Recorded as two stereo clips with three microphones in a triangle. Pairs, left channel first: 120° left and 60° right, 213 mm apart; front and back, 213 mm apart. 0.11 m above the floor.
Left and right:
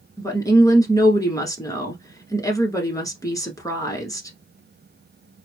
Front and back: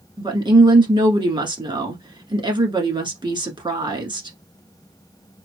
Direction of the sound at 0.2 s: 165° left.